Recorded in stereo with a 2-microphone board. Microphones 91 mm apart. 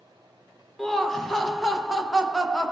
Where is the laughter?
5° left (ahead or behind), 0.7 m.